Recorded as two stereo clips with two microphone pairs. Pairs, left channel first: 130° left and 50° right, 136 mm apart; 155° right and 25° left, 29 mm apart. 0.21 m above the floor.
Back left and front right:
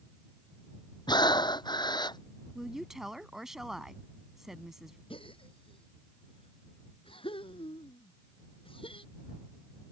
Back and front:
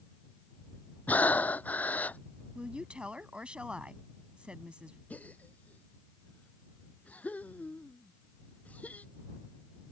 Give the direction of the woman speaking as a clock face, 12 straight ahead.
11 o'clock.